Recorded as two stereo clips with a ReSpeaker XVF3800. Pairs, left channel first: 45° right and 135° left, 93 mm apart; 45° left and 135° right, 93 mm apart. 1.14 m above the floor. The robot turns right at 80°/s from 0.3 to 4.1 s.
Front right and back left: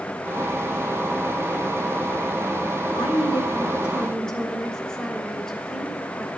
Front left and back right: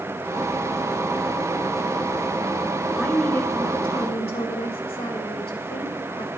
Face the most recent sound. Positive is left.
turn(degrees=40)